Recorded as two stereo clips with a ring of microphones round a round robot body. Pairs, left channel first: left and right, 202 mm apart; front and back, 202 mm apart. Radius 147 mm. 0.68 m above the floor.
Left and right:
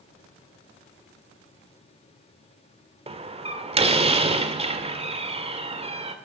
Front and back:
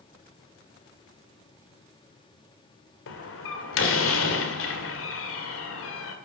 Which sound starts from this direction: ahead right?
A door slam, at 3.1 s.